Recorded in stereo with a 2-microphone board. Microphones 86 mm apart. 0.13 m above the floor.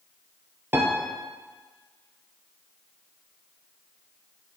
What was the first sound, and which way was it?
A piano, 25° right (ahead or behind).